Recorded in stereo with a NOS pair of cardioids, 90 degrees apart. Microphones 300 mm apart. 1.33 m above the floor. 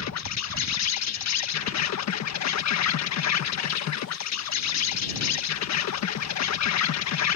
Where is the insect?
60° left.